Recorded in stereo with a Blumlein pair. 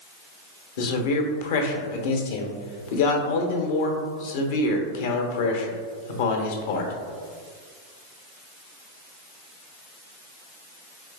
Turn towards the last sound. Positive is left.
turn(degrees=55)